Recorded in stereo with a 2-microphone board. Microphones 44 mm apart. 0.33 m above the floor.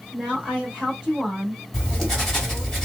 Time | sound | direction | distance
0.1 | a woman speaking | 15° right (ahead or behind) | 1.1 m
1.7 | writing | 10° left (ahead or behind) | 1.4 m